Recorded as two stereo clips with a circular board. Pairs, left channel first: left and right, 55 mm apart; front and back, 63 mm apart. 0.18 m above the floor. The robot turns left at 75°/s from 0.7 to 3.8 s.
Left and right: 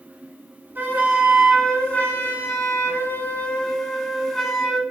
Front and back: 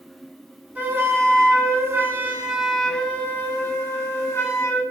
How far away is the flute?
About 0.8 m.